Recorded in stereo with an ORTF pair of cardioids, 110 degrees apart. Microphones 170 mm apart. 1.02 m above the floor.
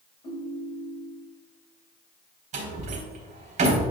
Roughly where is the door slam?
Ahead right.